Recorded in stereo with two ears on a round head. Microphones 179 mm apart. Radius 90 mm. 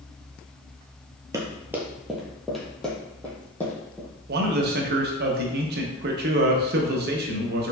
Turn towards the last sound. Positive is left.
turn(degrees=-50)  # may be behind; listen again after turning